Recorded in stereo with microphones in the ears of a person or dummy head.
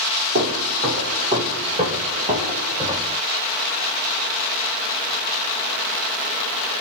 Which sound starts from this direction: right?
Footsteps, at 0.3 s.